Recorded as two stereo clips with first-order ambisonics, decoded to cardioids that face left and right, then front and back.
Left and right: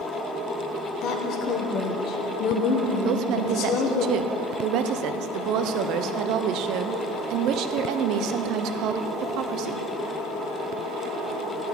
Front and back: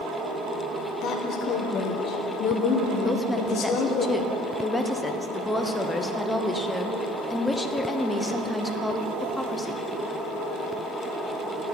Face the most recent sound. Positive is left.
turn(degrees=-85)